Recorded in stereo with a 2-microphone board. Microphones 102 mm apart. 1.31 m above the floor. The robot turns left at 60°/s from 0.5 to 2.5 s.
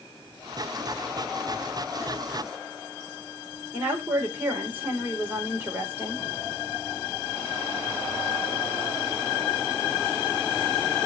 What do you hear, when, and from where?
3.7 s a woman speaking: 15° right (ahead or behind), 4.5 m